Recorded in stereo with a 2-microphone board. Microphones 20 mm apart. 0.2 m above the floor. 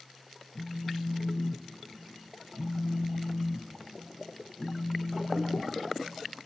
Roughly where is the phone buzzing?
Left.